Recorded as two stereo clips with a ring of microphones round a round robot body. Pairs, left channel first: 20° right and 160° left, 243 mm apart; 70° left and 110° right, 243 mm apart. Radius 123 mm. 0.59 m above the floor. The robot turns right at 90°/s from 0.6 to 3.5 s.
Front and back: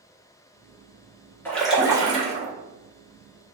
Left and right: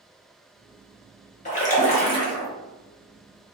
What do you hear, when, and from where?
1.4 s a splash: 50° left, 0.9 m; by 2.5 s 145° left, 0.9 m